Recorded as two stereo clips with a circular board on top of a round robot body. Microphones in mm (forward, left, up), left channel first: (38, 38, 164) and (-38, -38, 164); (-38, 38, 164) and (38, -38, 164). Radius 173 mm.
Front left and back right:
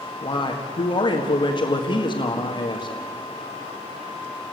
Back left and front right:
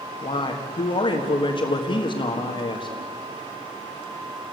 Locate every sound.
0.2 s a man speaking: 95° left, 1.7 m